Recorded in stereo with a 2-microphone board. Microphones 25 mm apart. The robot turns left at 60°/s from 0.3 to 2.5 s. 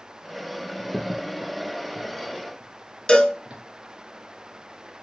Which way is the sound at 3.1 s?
40° left (ahead or behind).